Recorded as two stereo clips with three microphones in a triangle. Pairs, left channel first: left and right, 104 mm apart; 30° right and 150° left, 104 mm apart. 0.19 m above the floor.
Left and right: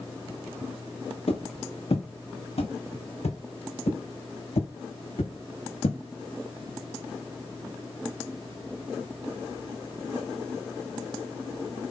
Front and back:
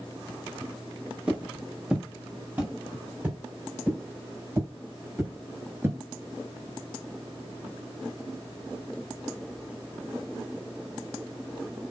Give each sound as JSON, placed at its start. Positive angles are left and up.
{"t": 1.3, "sound": "footsteps", "azimuth_deg": 70, "distance_m": 4.5}